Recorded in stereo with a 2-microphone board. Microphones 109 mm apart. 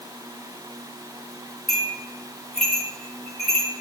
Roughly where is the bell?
Centre.